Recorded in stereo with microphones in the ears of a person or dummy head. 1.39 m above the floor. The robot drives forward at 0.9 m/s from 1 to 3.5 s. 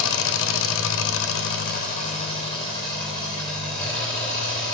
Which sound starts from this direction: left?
An engine running, at 0.0 s.